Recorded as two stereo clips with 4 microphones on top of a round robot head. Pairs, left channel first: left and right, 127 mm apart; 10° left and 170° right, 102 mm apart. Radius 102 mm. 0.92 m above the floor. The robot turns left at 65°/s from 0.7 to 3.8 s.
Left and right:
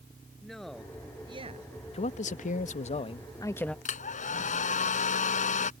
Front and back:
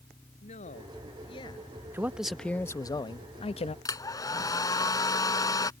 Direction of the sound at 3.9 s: 65° left.